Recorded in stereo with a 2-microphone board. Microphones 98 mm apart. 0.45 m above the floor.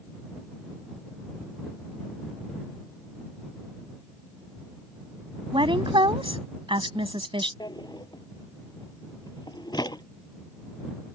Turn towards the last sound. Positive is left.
turn(degrees=45)  # may be behind; listen again after turning